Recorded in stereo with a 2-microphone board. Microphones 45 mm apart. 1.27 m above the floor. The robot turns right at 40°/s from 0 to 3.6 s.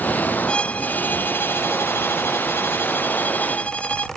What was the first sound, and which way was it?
A violin, 25° left.